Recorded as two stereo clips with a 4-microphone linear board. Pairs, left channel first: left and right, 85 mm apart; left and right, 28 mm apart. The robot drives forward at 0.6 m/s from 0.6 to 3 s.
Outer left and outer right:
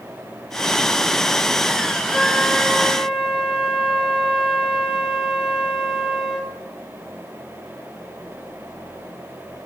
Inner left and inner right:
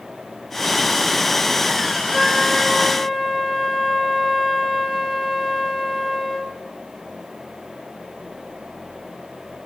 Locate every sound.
2.1 s a flute: 15° right (ahead or behind), 3 m; by 6.5 s 10° right (ahead or behind), 3.5 m